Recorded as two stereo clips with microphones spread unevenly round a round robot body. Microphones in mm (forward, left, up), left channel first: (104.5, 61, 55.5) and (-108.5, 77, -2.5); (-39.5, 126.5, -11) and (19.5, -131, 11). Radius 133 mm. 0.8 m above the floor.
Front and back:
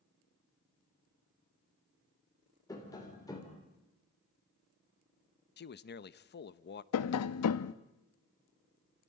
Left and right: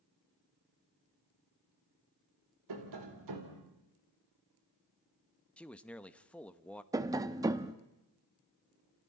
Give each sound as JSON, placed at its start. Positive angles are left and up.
{"t": 2.7, "sound": "tapping", "azimuth_deg": -85, "distance_m": 3.5}
{"t": 5.6, "sound": "a man speaking", "azimuth_deg": 25, "distance_m": 0.9}
{"t": 6.9, "sound": "tapping", "azimuth_deg": 0, "distance_m": 0.8}